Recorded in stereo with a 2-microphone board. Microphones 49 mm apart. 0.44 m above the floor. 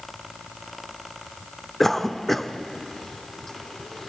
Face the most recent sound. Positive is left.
turn(degrees=5)  # may be behind; listen again after turning